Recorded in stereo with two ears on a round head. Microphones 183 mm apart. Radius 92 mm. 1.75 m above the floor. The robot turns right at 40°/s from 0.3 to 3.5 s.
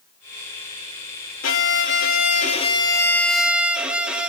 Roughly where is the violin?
Left.